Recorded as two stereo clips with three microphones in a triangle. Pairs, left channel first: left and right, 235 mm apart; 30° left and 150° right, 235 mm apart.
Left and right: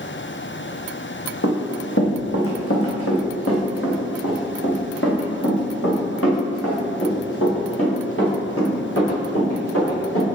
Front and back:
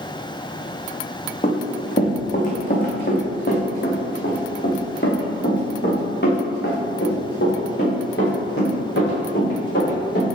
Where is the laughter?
I don't hear laughter.